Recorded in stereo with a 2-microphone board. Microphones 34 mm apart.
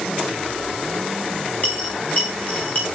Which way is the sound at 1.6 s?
45° left (ahead or behind).